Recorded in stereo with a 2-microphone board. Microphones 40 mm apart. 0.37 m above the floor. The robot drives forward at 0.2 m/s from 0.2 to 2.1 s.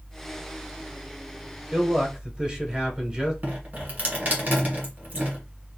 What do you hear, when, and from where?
1.7 s a man speaking: 20° right (ahead or behind), 0.8 m
3.4 s dripping: 45° right (ahead or behind), 1.5 m